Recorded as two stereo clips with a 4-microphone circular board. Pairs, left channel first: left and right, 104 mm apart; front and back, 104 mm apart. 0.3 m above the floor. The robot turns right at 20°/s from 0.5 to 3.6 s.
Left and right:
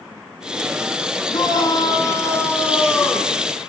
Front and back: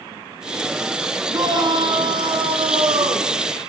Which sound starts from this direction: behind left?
A shout, at 1.3 s.